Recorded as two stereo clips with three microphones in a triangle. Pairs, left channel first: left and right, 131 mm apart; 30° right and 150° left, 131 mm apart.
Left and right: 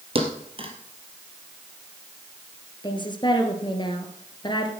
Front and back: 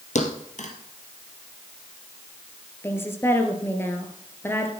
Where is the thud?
45° right, 2 m.